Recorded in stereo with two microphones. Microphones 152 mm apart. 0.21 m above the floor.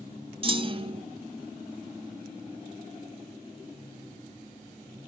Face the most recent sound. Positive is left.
turn(degrees=-35)  # may be behind; listen again after turning